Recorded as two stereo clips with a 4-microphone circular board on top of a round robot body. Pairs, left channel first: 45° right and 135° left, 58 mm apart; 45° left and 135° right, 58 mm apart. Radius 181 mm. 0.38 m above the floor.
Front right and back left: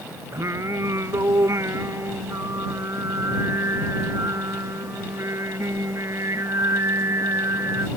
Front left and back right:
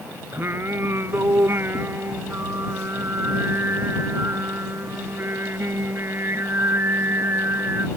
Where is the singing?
175° left.